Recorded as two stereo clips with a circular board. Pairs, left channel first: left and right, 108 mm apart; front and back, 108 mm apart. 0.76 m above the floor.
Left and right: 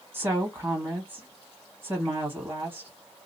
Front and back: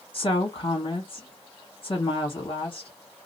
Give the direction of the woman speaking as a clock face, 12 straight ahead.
1 o'clock.